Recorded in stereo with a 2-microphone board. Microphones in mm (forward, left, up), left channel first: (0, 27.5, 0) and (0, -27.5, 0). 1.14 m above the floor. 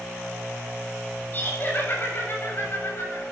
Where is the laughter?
35° left (ahead or behind), 7 m; by 3.2 s 50° left (ahead or behind), 7.5 m.